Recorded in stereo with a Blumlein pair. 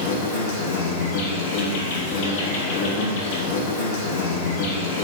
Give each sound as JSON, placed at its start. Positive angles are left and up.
{"t": 0.0, "sound": "an insect", "azimuth_deg": 55, "distance_m": 0.8}